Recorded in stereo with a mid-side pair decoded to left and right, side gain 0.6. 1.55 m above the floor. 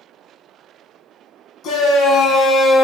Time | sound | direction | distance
1.6 | a shout | 55° left | 1.4 m